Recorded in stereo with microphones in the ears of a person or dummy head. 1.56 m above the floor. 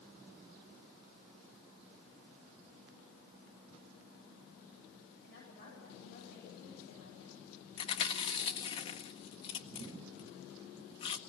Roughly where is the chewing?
Left.